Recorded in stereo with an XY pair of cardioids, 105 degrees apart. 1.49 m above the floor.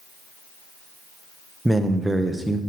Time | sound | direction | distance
1.6 | a man speaking | 10° right | 1.0 m